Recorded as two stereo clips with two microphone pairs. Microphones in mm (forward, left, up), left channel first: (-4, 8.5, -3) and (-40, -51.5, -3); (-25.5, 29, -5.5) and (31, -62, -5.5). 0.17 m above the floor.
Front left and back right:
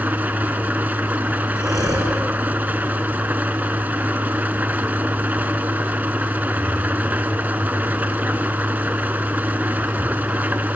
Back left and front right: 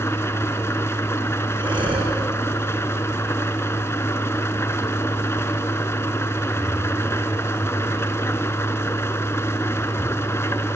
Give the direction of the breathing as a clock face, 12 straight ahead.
3 o'clock.